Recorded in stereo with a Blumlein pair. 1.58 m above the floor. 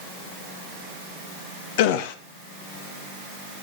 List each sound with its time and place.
1.8 s a gasp: 50° left, 1.2 m